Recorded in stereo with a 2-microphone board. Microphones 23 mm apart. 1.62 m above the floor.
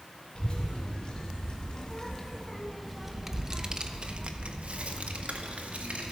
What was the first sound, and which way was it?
A child speaking, 40° left (ahead or behind).